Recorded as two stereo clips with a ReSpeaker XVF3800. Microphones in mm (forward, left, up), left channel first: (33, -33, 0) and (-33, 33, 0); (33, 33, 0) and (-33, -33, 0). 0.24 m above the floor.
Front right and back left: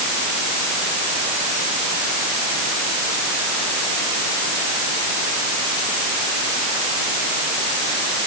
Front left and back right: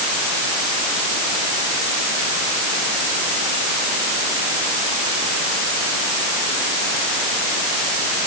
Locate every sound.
Only background noise.